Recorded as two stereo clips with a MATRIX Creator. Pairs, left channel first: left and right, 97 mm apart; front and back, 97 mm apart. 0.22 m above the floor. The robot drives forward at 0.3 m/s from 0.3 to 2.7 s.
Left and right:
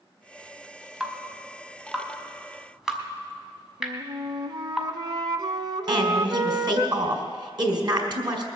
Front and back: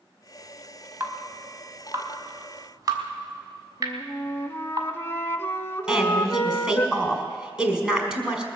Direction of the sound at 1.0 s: 165° right.